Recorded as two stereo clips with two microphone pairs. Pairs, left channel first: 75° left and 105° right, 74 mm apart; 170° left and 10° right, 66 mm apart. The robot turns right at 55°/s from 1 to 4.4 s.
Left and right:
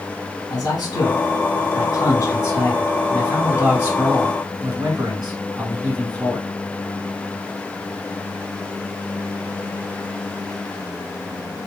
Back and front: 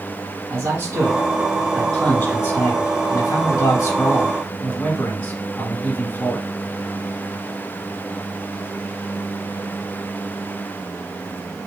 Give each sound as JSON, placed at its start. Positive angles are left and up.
{"t": 0.5, "sound": "a man speaking", "azimuth_deg": 35, "distance_m": 2.5}